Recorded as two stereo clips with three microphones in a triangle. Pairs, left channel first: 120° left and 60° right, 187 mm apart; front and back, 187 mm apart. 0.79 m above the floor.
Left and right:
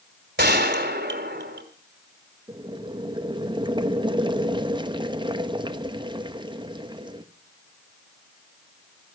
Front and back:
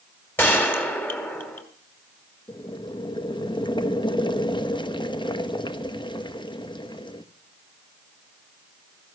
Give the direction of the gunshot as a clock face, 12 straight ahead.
3 o'clock.